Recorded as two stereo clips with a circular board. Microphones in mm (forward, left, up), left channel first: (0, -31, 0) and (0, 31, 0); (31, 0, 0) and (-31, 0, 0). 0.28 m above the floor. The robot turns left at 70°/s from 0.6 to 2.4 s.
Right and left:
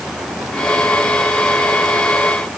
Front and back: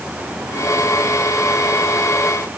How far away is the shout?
I don't hear a shout.